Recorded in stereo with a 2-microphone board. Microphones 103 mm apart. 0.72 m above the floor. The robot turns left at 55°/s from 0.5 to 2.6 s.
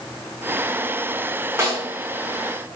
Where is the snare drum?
25° right (ahead or behind), 0.7 m; by 1.9 s 35° right (ahead or behind), 0.7 m.